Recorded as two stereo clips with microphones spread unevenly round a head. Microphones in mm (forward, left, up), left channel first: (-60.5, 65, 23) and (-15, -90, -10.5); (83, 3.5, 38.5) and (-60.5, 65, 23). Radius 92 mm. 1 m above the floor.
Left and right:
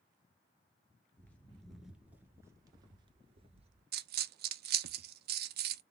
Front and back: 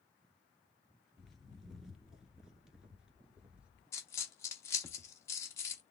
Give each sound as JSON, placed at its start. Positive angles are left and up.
{"t": 1.2, "sound": "footsteps", "azimuth_deg": 55, "distance_m": 1.1}
{"t": 3.9, "sound": "a dropped coin", "azimuth_deg": -95, "distance_m": 0.5}